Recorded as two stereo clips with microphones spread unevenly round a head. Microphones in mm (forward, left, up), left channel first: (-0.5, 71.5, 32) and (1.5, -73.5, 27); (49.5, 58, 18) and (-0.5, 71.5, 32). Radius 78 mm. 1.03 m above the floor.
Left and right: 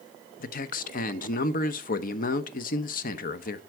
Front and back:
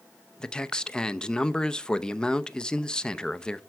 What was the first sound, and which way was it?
A man speaking, 60° left.